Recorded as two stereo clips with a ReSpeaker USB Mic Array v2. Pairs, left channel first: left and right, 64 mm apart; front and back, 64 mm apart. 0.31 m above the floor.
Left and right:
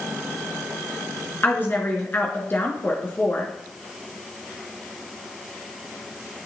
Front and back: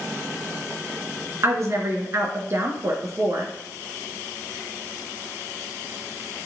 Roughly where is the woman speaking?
Behind left.